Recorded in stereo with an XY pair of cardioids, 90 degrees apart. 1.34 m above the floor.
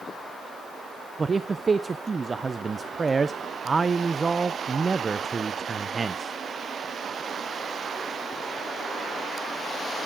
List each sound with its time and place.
1.2 s a man speaking: 30° right, 0.5 m